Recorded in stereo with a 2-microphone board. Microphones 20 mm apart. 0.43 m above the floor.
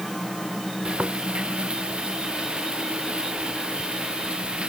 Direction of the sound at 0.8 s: 70° right (ahead or behind).